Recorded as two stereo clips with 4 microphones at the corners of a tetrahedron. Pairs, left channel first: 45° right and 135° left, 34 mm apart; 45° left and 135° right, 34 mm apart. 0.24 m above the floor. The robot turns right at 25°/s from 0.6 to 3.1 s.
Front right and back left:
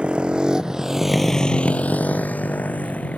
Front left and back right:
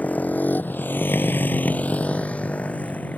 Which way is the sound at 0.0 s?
80° left.